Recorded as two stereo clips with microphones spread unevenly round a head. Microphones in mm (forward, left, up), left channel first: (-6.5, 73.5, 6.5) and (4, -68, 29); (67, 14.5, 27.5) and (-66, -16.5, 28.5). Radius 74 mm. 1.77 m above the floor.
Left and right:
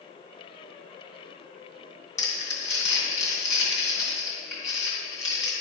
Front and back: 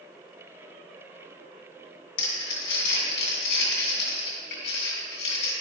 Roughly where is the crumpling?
Ahead left.